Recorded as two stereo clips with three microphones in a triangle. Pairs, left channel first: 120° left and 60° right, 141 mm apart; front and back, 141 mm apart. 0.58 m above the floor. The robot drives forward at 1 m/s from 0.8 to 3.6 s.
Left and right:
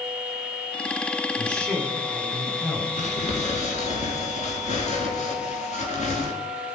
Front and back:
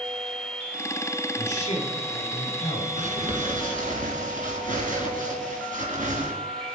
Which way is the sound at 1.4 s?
35° left.